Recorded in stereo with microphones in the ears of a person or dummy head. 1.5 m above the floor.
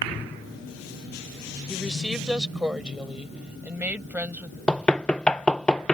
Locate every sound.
1.7 s a woman speaking: centre (ahead or behind); by 4.6 s 10° right (ahead or behind)
4.7 s knocking: 10° left (ahead or behind)